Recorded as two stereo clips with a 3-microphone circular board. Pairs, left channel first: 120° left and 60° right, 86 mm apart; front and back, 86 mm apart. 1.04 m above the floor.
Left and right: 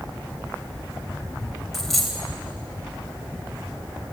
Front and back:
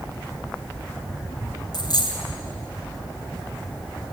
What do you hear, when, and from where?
1.7 s a dropped coin: 30° left, 2.5 m